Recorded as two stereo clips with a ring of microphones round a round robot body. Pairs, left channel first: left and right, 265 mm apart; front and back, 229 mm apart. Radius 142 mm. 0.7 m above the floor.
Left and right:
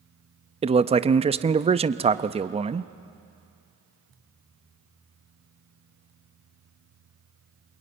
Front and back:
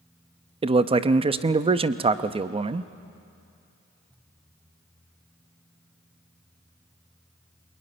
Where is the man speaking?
135° right, 0.7 m.